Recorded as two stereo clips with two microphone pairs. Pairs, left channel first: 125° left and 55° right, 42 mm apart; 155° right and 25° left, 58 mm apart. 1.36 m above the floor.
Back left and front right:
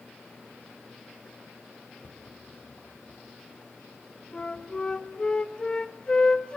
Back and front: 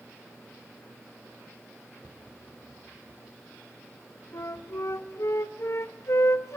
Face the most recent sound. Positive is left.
turn(degrees=-170)